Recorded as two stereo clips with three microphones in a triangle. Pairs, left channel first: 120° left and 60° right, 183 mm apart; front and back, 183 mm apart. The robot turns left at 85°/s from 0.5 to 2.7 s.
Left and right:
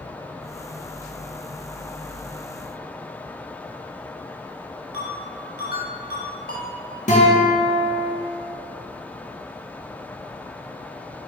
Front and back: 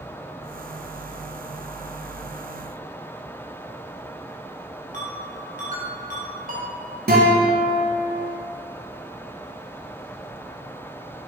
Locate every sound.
4.9 s a ringtone: 145° left, 2.5 m
7.1 s a guitar: 160° left, 2 m